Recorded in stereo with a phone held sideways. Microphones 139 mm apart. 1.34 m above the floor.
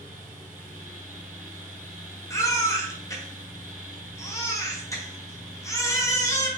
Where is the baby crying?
20° left (ahead or behind), 0.7 m.